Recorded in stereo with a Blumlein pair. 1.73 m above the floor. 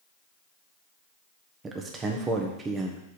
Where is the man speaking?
20° right, 1.3 m.